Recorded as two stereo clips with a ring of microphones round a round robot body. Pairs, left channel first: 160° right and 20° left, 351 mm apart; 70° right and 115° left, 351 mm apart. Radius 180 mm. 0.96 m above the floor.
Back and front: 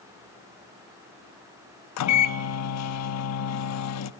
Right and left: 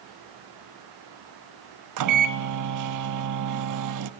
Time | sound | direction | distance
2.0 | a microwave | 155° left | 0.9 m